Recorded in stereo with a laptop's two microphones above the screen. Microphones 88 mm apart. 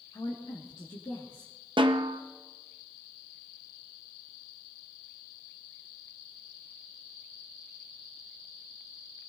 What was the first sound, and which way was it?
A woman speaking, 65° left (ahead or behind).